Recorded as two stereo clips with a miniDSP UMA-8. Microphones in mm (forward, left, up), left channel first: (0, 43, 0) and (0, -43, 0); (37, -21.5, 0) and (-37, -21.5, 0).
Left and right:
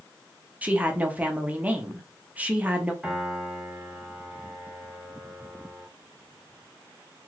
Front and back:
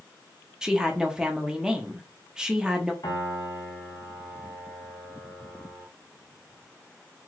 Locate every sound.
0.6 s a woman speaking: 120° right, 0.6 m
3.0 s a piano: 10° right, 1.0 m